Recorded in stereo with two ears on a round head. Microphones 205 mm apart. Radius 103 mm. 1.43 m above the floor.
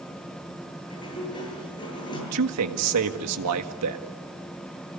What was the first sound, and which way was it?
A sliding door, 20° left (ahead or behind).